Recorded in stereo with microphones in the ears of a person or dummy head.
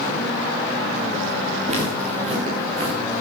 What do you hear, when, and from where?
1.7 s footsteps: 45° right (ahead or behind), 6.5 m; by 3.0 s 35° right (ahead or behind), 6 m